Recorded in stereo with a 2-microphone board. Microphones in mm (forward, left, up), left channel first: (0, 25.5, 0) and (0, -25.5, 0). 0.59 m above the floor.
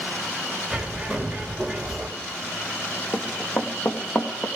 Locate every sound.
0.7 s a bird: 5° right (ahead or behind), 2.0 m
3.1 s running footsteps: 65° left (ahead or behind), 2 m; by 4.5 s 50° left (ahead or behind), 3 m